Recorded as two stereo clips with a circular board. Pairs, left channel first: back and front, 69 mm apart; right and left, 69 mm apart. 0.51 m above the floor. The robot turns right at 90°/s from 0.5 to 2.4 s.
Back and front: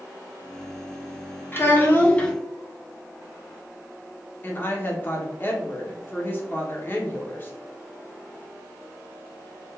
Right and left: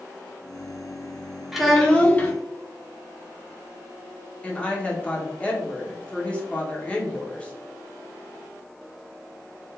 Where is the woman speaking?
145° right, 0.8 m.